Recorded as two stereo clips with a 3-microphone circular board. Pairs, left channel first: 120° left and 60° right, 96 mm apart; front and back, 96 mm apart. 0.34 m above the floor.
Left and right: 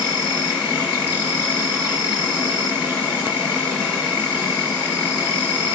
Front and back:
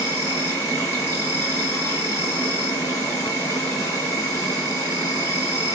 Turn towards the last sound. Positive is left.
turn(degrees=5)